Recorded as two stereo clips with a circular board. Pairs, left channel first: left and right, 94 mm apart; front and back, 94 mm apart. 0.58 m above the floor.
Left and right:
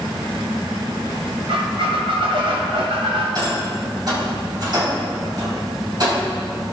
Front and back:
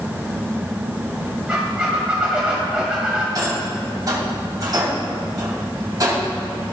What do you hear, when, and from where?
1.5 s a squeak: 100° right, 2.5 m
3.4 s a rattle: 130° right, 3.5 m